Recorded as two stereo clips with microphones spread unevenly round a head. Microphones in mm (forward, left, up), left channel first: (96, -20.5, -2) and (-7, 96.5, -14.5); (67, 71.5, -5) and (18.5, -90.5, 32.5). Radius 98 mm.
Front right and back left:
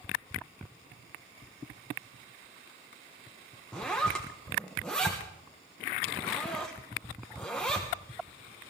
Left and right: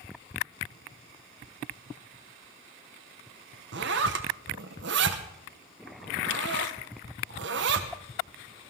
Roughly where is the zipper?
Behind right.